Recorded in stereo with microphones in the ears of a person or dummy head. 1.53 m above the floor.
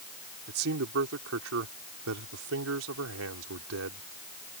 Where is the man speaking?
65° right (ahead or behind); by 4.0 s 85° right.